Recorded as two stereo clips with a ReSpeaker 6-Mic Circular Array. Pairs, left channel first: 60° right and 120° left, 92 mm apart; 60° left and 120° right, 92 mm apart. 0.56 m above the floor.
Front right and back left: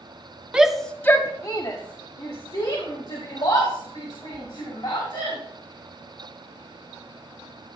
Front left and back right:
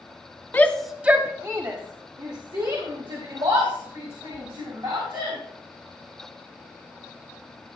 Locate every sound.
0.5 s a shout: 65° left, 0.9 m; by 5.4 s 95° right, 5.5 m